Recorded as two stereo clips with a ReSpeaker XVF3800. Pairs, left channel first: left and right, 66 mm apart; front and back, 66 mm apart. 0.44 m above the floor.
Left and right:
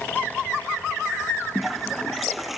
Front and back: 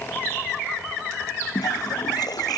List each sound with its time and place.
1.6 s a toilet flushing: 5° right